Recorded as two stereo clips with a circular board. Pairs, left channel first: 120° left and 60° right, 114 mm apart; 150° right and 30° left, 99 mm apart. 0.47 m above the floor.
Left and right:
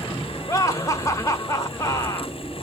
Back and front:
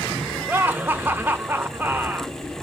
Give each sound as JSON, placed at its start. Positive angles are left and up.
{"t": 0.5, "sound": "laughter", "azimuth_deg": 85, "distance_m": 0.9}